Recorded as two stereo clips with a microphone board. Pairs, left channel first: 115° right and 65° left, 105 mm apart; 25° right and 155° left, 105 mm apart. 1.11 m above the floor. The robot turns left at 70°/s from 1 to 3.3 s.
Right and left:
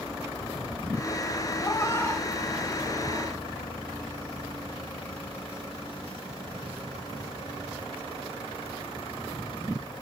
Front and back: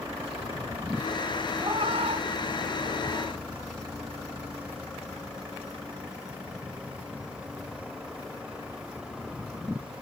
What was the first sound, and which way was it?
A cat meowing, 150° right.